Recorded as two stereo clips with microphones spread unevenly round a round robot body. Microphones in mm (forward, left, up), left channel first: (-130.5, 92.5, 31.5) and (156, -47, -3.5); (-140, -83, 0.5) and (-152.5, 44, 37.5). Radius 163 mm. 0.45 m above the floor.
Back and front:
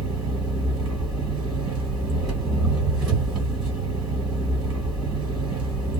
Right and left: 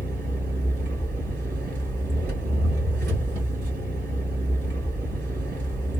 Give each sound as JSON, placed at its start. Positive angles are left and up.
{"t": 0.0, "sound": "an engine running", "azimuth_deg": 60, "distance_m": 2.0}